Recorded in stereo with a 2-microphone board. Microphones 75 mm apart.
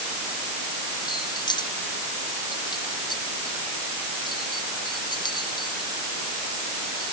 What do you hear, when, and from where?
1.1 s keys jangling: 75° left (ahead or behind); by 7.1 s 70° left (ahead or behind)